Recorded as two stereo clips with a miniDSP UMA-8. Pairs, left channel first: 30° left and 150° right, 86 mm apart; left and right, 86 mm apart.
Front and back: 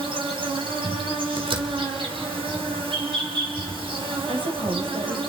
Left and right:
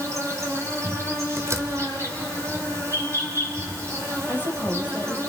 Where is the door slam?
145° right, 1.8 m.